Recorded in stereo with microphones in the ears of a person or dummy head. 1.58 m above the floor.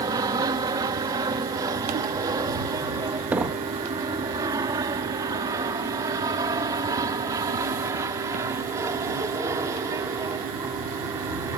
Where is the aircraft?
20° right (ahead or behind); by 11.6 s 15° right (ahead or behind).